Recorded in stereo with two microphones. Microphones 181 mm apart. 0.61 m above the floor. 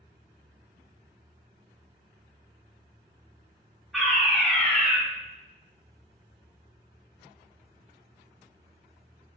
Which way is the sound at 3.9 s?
Centre (ahead or behind).